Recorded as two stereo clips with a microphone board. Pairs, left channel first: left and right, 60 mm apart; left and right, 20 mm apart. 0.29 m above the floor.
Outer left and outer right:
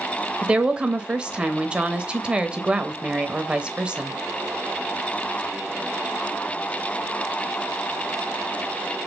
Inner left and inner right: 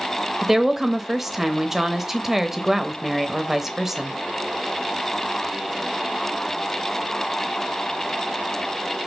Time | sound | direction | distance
0.4 | a woman speaking | 20° right (ahead or behind) | 0.9 m